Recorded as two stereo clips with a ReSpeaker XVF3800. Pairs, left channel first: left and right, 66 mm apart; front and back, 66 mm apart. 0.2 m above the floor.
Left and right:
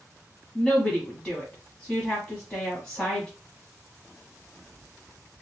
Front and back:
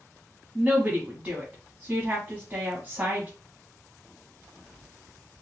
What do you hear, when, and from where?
0.6 s a woman speaking: 145° left, 1.1 m